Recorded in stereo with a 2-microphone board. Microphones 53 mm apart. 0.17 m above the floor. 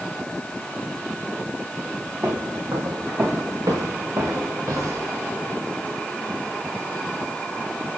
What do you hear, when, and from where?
2.2 s footsteps: 70° right (ahead or behind), 4.5 m; by 5.1 s 90° right, 4 m